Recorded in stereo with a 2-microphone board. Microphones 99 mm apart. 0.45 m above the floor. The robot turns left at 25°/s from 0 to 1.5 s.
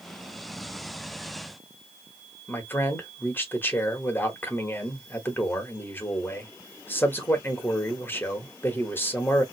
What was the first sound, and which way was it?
A man speaking, 20° left (ahead or behind).